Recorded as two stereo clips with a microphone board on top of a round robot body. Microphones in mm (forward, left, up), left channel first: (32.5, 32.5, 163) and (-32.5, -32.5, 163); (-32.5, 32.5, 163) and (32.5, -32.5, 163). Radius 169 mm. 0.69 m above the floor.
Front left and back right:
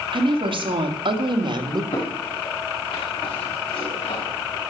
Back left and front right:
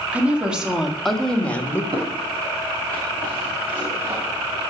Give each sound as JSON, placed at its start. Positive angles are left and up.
{"t": 0.1, "sound": "a woman speaking", "azimuth_deg": -120, "distance_m": 2.5}
{"t": 1.9, "sound": "footsteps", "azimuth_deg": 0, "distance_m": 5.0}